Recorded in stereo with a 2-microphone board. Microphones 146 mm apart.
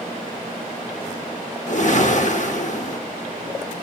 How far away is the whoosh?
About 0.9 m.